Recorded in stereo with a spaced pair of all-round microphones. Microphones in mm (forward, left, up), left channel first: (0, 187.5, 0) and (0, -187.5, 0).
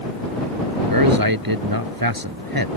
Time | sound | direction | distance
0.9 | a man speaking | 60° right (ahead or behind) | ?